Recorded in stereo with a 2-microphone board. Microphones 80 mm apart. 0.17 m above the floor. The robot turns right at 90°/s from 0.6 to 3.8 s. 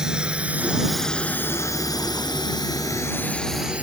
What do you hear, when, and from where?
0.0 s a drone: 10° right (ahead or behind); by 3.8 s 15° right (ahead or behind)